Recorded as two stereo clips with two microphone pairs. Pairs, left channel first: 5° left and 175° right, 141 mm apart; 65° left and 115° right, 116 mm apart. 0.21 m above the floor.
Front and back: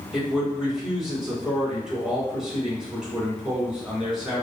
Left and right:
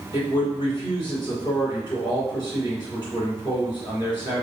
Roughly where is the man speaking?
Left.